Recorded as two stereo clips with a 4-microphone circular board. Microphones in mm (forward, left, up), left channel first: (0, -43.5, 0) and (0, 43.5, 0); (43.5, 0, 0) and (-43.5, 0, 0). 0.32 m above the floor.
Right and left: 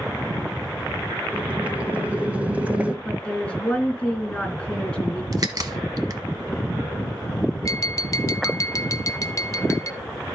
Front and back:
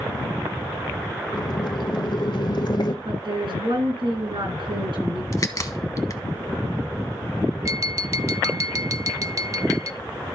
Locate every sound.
1.3 s boiling: 20° left, 0.8 m
3.0 s a woman speaking: 170° right, 3.5 m
5.3 s a crack: 50° left, 1.0 m
7.7 s tapping: 135° right, 0.5 m